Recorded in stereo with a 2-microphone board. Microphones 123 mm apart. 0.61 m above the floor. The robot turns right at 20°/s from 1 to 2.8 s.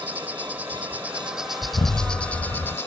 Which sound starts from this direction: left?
An explosion, at 1.6 s.